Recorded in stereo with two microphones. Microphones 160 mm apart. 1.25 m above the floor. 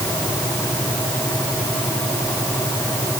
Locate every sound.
Only background noise.